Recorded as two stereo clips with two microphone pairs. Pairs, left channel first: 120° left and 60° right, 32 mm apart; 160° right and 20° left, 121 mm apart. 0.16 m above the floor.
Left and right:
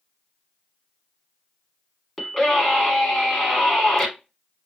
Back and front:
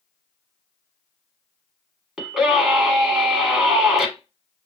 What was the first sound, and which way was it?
A scream, 100° left.